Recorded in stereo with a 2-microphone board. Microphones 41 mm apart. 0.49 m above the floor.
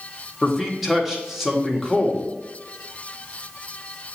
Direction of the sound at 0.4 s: 5° right (ahead or behind).